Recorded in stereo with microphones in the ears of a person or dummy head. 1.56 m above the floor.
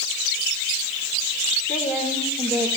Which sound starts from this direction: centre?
A woman speaking, at 1.7 s.